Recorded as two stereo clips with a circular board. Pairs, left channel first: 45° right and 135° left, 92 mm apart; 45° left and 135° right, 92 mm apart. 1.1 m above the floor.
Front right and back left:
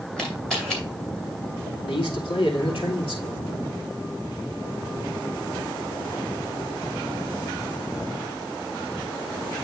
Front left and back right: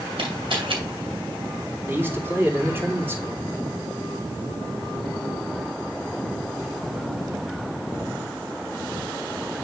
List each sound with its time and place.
0.2 s a camera shutter: 125° right, 3 m
1.9 s a man speaking: 70° right, 2.5 m